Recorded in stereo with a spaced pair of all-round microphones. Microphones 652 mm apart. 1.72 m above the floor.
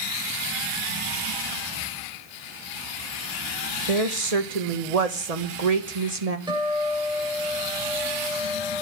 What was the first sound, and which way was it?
A woman speaking, 65° right (ahead or behind).